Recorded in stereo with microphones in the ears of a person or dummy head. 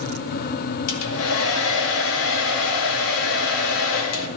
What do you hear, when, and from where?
0.9 s a hair dryer: 70° left (ahead or behind), 2 m